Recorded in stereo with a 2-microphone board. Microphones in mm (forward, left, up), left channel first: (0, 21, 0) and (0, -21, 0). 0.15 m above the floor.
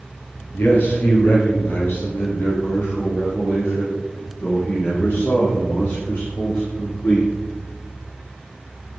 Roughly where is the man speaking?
Left.